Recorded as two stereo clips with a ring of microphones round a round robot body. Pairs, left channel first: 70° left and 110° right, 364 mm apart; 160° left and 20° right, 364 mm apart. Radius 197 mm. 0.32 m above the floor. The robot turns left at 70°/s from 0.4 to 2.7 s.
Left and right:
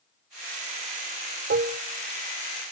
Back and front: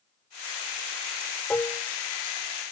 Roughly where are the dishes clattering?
Behind right.